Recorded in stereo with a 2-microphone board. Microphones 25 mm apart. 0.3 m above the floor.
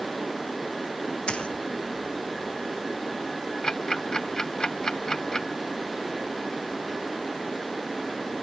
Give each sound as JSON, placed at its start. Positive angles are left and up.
{"t": 1.3, "sound": "a splash", "side_deg": 40}
{"t": 3.6, "sound": "ticking", "side_deg": 25}